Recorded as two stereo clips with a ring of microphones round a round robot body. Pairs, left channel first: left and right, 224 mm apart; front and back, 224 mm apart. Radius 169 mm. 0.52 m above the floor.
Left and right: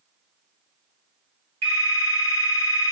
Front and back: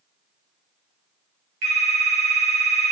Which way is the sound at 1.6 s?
165° right.